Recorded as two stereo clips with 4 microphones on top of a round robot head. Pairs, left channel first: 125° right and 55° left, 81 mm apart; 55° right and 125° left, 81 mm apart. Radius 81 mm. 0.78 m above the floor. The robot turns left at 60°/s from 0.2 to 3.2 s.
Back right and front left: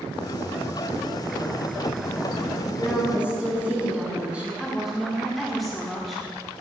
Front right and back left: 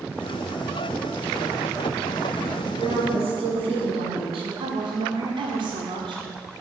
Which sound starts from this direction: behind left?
A woman speaking, at 4.6 s.